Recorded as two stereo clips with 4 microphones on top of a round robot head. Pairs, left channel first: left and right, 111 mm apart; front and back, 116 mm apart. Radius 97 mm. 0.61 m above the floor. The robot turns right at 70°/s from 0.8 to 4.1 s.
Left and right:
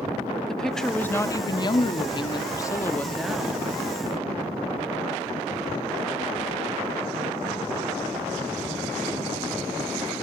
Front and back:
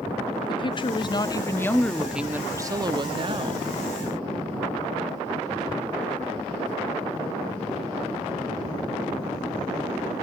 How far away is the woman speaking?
About 1.3 m.